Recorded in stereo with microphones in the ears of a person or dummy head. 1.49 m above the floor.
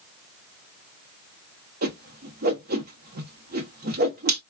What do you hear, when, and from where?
1.8 s a whoosh: 45° right (ahead or behind), 0.9 m